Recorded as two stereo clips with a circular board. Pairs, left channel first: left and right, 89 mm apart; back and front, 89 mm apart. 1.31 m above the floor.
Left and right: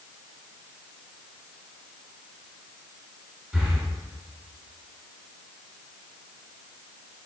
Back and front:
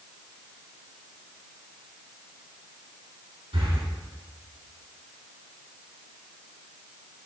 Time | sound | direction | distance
3.5 | breathing | 5° left | 2 m